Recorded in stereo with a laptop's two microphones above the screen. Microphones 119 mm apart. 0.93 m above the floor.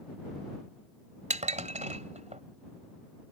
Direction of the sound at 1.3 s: 75° right (ahead or behind).